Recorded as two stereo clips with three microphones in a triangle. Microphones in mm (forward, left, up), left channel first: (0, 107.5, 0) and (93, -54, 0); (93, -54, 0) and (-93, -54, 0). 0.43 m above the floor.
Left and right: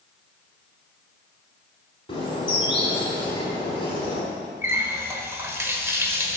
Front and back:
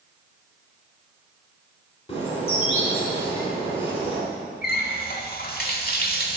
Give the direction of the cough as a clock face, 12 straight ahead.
No cough in this recording.